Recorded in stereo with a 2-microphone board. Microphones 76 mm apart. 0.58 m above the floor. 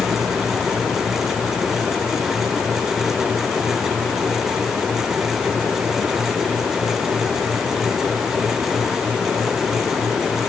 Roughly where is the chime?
No chime in this recording.